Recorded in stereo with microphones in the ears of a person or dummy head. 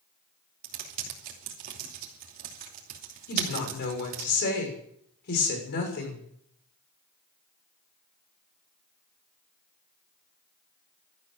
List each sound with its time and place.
0.6 s typing on a keyboard: 45° right (ahead or behind), 3 m
3.3 s a woman speaking: 55° left (ahead or behind), 6.5 m